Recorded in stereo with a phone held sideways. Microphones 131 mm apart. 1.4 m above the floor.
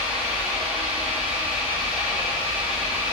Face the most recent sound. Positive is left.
turn(degrees=-10)  # may be behind; listen again after turning